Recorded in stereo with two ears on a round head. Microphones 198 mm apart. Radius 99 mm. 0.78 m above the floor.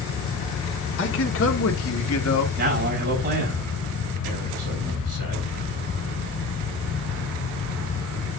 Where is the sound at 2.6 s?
40° right (ahead or behind), 5 m.